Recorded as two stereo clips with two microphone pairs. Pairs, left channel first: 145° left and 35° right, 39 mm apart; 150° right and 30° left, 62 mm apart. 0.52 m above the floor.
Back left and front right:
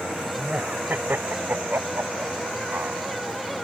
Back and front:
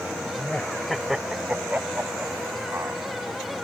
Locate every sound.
0.4 s laughter: 85° right; by 3.0 s 15° right